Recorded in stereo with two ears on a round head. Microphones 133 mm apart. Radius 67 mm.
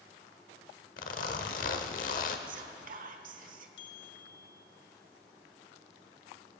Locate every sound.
1.0 s a zipper: 55° left (ahead or behind), 1.0 m
2.5 s whispering: 55° right (ahead or behind), 1.2 m
3.8 s a bell: 80° left, 1.2 m